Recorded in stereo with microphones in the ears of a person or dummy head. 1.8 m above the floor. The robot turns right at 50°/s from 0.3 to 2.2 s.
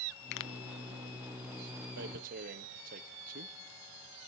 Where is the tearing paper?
65° right (ahead or behind), 1.2 m; by 3.5 s 55° right (ahead or behind), 1.2 m.